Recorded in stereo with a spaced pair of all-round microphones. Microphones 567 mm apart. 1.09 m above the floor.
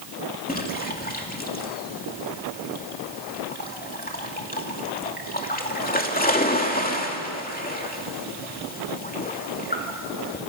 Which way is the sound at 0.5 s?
15° left (ahead or behind).